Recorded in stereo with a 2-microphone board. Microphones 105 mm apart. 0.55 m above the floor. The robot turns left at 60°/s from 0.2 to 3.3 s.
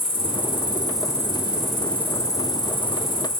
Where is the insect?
90° right, 3 m; by 3.4 s 85° left, 3 m.